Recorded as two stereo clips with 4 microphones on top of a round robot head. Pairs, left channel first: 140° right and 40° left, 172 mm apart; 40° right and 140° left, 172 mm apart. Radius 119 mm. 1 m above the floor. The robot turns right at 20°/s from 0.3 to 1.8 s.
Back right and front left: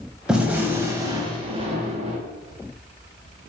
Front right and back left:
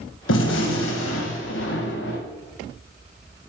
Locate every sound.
0.3 s a gunshot: 45° right, 1.7 m; by 2.2 s 15° right, 1.7 m